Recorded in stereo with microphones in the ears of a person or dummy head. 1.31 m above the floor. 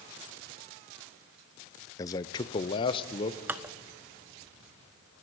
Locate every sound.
2.0 s a man speaking: 20° left (ahead or behind), 0.6 m; by 3.4 s 30° left (ahead or behind), 1.3 m
3.5 s dishes clattering: 10° right (ahead or behind), 0.7 m